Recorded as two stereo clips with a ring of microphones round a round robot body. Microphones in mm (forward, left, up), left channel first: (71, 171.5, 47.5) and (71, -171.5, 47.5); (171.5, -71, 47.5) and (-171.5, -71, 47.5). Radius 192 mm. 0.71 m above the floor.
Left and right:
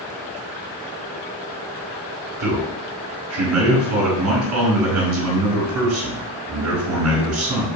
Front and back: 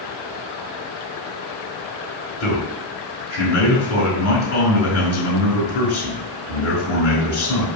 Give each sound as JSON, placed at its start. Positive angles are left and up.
{"t": 2.4, "sound": "a man speaking", "azimuth_deg": -50, "distance_m": 4.0}